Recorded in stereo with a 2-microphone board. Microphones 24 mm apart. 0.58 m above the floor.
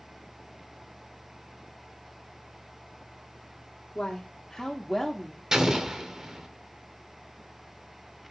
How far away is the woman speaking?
About 0.9 m.